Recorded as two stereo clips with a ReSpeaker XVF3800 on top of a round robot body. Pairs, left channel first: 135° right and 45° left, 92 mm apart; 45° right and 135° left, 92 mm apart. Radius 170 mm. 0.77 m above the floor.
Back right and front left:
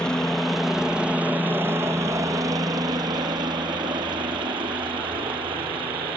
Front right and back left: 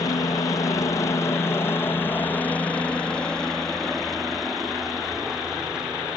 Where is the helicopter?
55° right; by 6.2 s 55° left.